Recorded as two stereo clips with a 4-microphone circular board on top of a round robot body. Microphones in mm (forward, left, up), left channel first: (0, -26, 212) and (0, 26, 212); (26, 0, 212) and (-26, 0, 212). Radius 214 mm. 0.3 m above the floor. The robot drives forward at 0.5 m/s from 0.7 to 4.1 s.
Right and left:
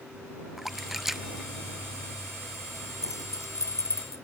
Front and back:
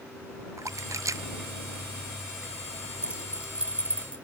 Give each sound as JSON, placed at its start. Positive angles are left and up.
{"t": 0.6, "sound": "a splash", "azimuth_deg": 175}
{"t": 3.0, "sound": "keys jangling", "azimuth_deg": -110}